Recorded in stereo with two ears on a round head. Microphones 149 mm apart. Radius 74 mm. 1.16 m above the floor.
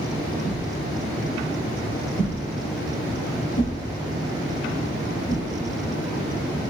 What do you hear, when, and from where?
0.4 s a whoosh: 55° left (ahead or behind), 3.5 m